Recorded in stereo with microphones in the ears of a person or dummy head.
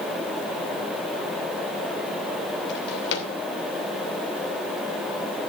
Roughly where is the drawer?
Left.